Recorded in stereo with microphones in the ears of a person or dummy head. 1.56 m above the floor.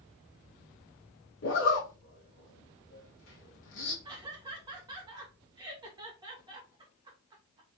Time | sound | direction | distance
1.4 | a zipper | 70° left (ahead or behind) | 1.7 m
4.0 | laughter | 20° right (ahead or behind) | 1.9 m